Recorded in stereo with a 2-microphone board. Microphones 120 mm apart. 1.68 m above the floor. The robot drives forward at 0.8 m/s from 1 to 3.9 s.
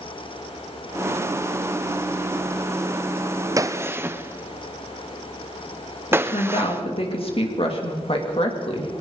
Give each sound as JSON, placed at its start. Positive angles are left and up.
{"t": 3.6, "sound": "a gunshot", "side_deg": -30, "distance_m": 0.6}
{"t": 6.1, "sound": "a woman speaking", "side_deg": 55, "distance_m": 3.0}